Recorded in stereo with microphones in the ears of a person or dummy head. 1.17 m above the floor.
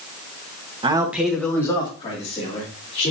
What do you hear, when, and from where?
0.8 s a man speaking: 25° right (ahead or behind), 1.2 m; by 3.1 s 35° left (ahead or behind), 3.5 m